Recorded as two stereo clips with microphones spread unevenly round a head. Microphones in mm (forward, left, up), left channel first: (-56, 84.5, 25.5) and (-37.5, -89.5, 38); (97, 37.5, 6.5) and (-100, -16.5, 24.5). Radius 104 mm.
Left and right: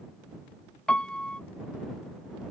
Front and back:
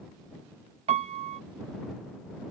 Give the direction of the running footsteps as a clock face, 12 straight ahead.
No running footsteps in this recording.